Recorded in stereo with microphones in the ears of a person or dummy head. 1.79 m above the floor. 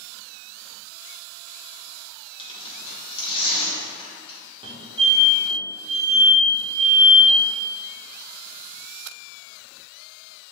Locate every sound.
2.4 s tearing paper: 35° left (ahead or behind), 1.8 m
4.6 s a fire alarm: 25° right (ahead or behind), 1.3 m